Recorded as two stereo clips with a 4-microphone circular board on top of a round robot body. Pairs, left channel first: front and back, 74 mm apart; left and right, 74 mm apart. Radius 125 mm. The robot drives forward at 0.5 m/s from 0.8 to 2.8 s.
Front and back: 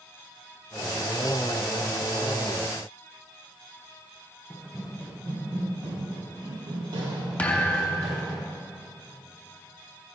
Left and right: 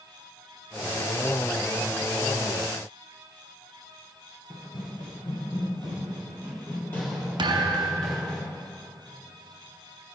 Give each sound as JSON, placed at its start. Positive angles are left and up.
{"t": 4.5, "sound": "running footsteps", "azimuth_deg": 95, "distance_m": 1.4}
{"t": 7.4, "sound": "a thud", "azimuth_deg": -70, "distance_m": 0.7}